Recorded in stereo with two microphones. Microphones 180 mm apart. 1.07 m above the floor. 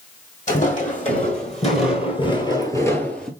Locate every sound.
0.5 s footsteps: 45° left (ahead or behind), 2 m; by 3.3 s 5° left (ahead or behind), 1.0 m